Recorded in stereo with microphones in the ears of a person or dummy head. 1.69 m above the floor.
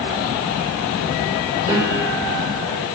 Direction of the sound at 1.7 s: 25° right (ahead or behind).